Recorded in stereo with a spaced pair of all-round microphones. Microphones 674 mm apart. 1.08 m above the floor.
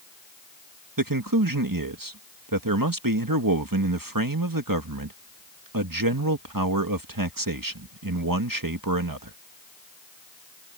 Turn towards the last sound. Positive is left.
turn(degrees=-30)  # may be behind; listen again after turning